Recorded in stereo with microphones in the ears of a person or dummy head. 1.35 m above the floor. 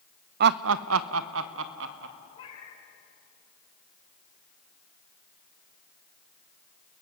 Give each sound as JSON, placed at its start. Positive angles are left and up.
{"t": 0.4, "sound": "laughter", "side_deg": -50, "distance_m": 0.6}
{"t": 2.3, "sound": "a cat meowing", "side_deg": 30, "distance_m": 5.0}